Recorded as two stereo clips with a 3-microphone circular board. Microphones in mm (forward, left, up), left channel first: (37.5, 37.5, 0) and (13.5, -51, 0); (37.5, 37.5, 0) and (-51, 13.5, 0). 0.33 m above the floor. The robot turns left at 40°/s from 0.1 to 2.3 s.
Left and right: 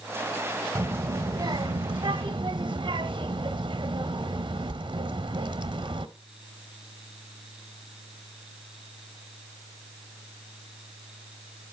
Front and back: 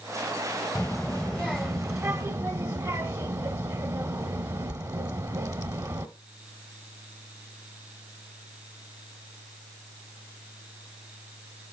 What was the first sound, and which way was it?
A child speaking, 65° right.